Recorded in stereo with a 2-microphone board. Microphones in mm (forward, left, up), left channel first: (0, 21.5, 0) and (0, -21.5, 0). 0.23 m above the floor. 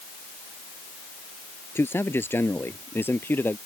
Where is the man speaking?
70° left (ahead or behind); by 3.6 s 55° left (ahead or behind).